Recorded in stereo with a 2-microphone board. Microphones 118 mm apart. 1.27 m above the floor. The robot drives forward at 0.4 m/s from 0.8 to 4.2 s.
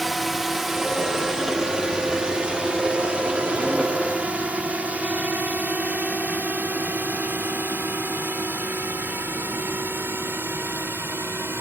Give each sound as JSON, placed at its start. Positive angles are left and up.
{"t": 0.0, "sound": "a drone", "side_deg": 0}